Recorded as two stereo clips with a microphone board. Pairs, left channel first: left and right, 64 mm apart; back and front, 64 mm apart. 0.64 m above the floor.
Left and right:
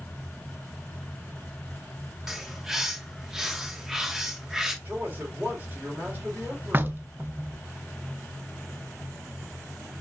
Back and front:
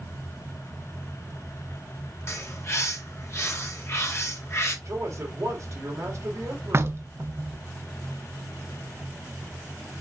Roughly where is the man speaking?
Ahead right.